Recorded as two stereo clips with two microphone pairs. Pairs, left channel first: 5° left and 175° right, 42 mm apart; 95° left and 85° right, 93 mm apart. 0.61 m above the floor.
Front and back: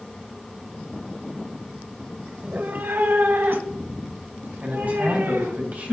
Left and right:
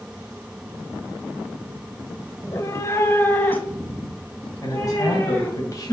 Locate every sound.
2.4 s a cat meowing: 140° left, 0.9 m; by 5.6 s 170° left, 4.5 m
4.6 s a man speaking: 140° left, 3 m